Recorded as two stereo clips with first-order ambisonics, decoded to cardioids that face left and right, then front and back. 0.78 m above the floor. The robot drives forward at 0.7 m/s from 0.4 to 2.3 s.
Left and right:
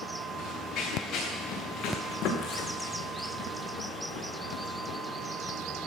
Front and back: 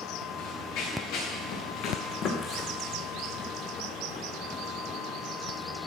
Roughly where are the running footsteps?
Ahead left.